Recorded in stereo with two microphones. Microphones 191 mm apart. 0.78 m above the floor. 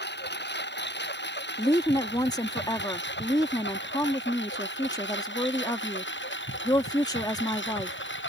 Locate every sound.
0.0 s a lawn mower: 65° left (ahead or behind); by 8.3 s 80° left
1.6 s a woman speaking: 20° left (ahead or behind)